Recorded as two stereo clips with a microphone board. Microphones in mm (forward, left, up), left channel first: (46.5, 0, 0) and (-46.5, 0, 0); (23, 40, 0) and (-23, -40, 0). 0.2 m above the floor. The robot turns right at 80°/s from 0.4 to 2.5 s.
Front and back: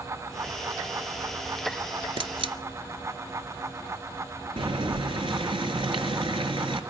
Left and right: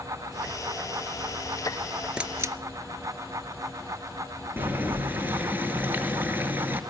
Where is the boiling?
175° left, 1.8 m.